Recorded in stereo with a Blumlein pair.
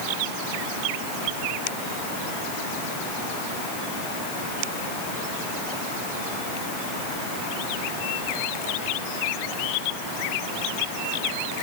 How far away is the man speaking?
No man speaking in this recording.